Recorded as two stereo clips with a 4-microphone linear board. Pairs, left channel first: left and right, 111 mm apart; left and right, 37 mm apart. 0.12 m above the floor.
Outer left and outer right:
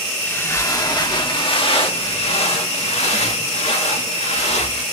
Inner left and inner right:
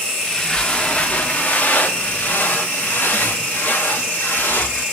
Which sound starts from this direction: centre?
Footsteps, at 0.2 s.